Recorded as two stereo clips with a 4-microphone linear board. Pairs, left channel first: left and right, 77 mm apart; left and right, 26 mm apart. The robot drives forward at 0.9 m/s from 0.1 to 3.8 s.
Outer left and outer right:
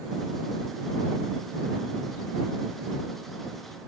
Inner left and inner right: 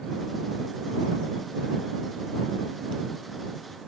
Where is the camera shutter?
I don't hear a camera shutter.